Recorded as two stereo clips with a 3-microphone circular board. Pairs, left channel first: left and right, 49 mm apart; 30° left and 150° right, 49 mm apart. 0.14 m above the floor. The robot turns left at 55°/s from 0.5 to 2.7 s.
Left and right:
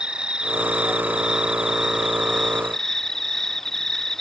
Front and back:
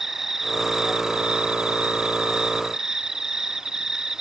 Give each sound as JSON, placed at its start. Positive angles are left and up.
{"t": 0.0, "sound": "an insect", "azimuth_deg": -85}